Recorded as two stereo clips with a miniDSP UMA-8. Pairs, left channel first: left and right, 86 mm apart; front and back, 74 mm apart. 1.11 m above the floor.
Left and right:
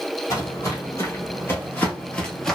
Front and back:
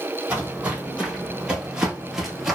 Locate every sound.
0.3 s footsteps: 115° left, 1.7 m; by 2.6 s 110° left, 1.0 m